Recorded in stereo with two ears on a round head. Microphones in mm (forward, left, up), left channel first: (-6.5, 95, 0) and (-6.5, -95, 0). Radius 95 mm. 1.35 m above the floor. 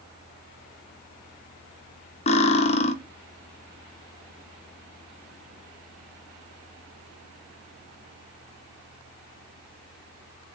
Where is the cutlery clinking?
30° left (ahead or behind), 0.7 m.